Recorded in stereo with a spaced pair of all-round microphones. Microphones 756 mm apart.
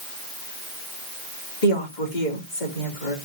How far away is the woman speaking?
About 2.5 m.